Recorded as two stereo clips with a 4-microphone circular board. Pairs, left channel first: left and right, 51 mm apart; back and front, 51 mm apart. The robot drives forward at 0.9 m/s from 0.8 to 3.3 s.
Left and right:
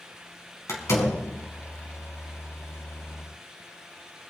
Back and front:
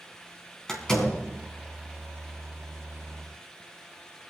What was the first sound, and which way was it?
A door slam, 100° left.